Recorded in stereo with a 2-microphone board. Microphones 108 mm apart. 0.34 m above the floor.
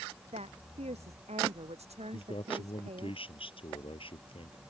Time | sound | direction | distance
0.3 | a woman speaking | 75° right (ahead or behind) | ?
2.1 | a man speaking | 55° left (ahead or behind) | ?